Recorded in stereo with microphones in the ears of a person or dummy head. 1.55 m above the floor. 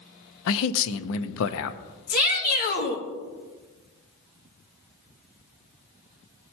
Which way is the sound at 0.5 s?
75° left (ahead or behind).